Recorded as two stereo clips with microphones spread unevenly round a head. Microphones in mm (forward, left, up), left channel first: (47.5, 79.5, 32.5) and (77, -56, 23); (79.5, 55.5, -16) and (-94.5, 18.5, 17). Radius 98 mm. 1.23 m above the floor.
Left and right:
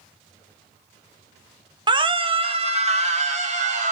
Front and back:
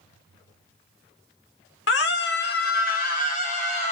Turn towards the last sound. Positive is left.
turn(degrees=-45)